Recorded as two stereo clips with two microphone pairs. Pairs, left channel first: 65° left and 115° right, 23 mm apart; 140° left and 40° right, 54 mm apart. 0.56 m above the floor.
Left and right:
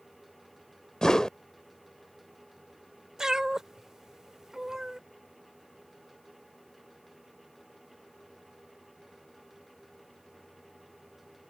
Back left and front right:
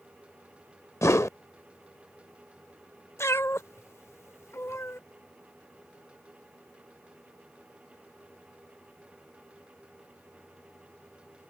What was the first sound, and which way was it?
A whoosh, 115° left.